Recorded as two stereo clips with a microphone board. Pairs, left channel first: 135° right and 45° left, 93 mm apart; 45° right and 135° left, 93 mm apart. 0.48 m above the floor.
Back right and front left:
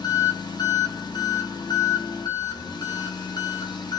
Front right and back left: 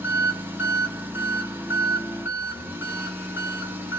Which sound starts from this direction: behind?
An engine running, at 0.0 s.